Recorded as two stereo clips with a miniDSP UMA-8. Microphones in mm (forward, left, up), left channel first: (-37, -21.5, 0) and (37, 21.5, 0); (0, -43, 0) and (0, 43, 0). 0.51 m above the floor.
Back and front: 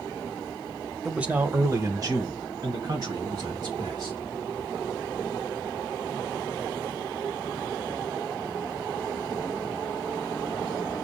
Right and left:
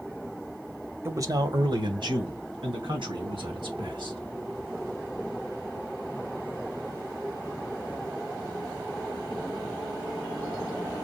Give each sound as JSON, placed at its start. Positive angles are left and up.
{"t": 1.1, "sound": "a man speaking", "azimuth_deg": 110, "distance_m": 0.8}